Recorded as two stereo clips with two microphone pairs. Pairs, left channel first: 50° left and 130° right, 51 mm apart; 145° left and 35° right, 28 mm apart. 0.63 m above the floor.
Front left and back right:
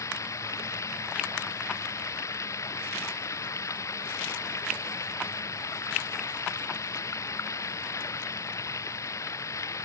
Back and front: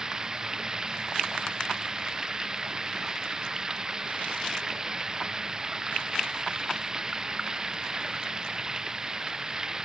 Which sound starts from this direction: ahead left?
Running water, at 0.0 s.